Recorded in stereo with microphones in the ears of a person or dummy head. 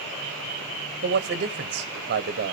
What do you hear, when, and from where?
1.0 s a man speaking: 45° right (ahead or behind), 1.2 m